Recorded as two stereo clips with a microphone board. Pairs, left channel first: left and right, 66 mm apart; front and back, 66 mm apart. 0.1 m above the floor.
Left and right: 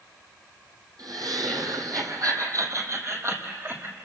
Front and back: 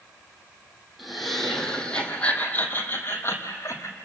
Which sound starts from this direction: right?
Laughter, at 1.0 s.